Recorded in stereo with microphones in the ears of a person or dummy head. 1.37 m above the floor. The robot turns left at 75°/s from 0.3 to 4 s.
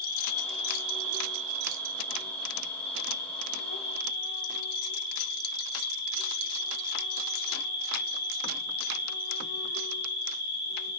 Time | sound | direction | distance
0.0 | an insect | 15° left | 3.5 m